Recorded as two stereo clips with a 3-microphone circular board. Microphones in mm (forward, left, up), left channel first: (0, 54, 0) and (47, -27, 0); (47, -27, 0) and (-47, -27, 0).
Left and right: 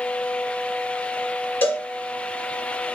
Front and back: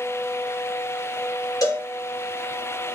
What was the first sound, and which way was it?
A cowbell, 55° left.